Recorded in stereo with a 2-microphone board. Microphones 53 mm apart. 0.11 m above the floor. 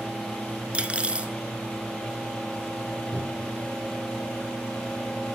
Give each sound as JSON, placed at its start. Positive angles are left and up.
{"t": 0.7, "sound": "cutlery clinking", "side_deg": -25, "distance_m": 0.9}
{"t": 3.1, "sound": "a cupboard door", "side_deg": -10, "distance_m": 5.0}